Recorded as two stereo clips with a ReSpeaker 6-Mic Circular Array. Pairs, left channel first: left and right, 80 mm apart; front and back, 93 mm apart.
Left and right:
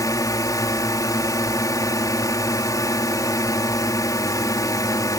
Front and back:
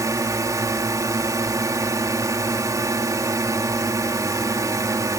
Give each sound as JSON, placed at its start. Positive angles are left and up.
{"t": 0.0, "sound": "a drone", "azimuth_deg": 130}